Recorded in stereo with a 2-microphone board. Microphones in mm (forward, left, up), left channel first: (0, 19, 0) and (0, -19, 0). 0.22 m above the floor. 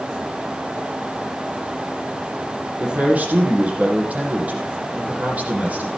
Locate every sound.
2.8 s a man speaking: 45° right (ahead or behind), 7 m